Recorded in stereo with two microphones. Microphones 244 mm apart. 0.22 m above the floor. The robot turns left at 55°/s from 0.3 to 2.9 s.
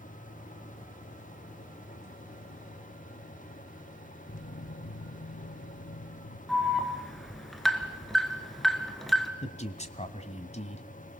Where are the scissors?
I don't hear scissors.